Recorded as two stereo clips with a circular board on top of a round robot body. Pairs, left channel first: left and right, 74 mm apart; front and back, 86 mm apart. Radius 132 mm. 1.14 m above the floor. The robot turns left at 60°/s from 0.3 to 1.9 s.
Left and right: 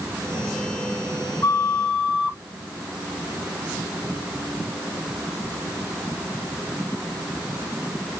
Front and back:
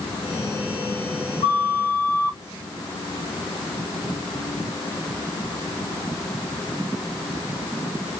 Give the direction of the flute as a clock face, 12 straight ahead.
11 o'clock.